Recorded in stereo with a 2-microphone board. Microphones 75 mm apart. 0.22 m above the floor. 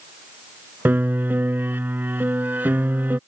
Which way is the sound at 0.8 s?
25° right (ahead or behind).